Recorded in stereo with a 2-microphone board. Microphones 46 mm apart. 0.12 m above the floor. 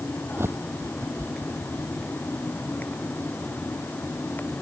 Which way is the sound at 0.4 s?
70° right (ahead or behind).